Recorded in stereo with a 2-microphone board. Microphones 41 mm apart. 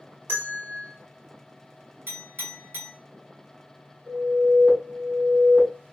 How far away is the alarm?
About 3 m.